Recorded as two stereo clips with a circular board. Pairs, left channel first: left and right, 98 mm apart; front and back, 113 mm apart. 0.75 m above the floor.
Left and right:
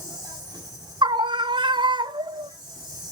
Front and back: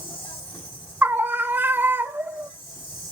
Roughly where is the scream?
Right.